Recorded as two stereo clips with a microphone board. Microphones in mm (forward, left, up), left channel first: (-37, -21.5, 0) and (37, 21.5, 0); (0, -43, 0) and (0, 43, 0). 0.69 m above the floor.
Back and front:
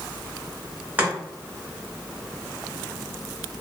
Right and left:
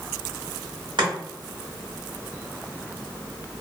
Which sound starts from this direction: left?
Chopping, at 1.0 s.